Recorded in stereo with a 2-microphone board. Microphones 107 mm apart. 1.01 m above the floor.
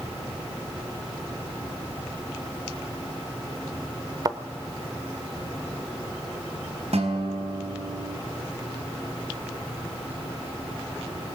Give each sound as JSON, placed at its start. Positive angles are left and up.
{"t": 4.2, "sound": "a thud", "side_deg": -35, "distance_m": 1.1}
{"t": 6.9, "sound": "a guitar", "side_deg": -75, "distance_m": 3.5}